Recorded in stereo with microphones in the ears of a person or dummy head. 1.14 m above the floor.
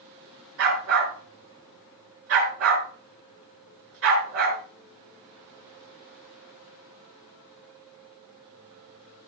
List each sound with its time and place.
0.6 s a dog barking: 70° right (ahead or behind), 5.5 m